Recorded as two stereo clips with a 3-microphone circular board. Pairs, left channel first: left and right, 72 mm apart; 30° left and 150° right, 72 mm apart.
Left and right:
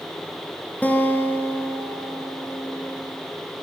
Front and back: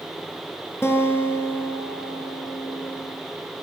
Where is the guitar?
40° left, 1.5 m.